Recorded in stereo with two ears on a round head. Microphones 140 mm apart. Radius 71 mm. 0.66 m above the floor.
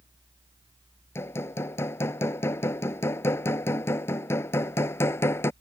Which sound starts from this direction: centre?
Hammering, at 1.1 s.